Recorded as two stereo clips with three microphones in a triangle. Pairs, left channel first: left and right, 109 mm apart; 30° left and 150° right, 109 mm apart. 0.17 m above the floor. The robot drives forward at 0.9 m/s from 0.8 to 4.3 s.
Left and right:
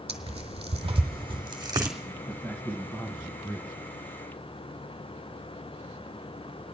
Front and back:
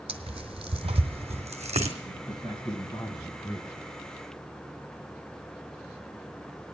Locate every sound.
0.1 s tearing paper: 115° right, 1.3 m; by 1.9 s 145° right, 2.0 m
2.0 s a man speaking: 25° left, 2.5 m; by 3.9 s 75° left, 1.7 m